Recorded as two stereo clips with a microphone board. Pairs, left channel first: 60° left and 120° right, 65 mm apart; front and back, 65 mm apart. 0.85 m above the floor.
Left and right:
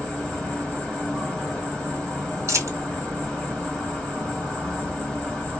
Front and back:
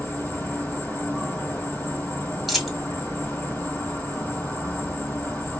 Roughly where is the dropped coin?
Right.